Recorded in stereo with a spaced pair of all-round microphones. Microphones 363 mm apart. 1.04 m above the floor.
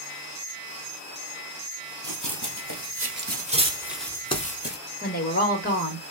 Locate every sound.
2.0 s running footsteps: 55° right (ahead or behind), 1.7 m; by 4.8 s 30° left (ahead or behind), 1.1 m
5.0 s a woman speaking: 25° left (ahead or behind), 1.5 m